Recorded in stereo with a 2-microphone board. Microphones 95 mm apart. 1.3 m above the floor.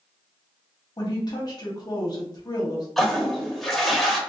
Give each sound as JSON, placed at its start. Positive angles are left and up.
{"t": 1.0, "sound": "a woman speaking", "side_deg": 45, "distance_m": 1.1}
{"t": 3.0, "sound": "a toilet flushing", "side_deg": 0, "distance_m": 0.7}